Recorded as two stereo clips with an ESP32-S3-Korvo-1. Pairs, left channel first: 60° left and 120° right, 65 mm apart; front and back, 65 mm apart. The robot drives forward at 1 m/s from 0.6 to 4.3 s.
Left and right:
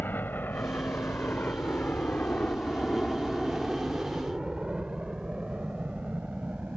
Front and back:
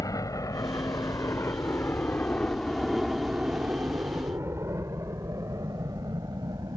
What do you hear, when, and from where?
0.0 s a helicopter: 5° left; by 6.8 s 170° left